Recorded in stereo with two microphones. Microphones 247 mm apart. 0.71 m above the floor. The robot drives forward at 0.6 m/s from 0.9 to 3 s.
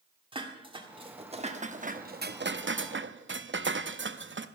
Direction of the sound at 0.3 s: 20° right (ahead or behind).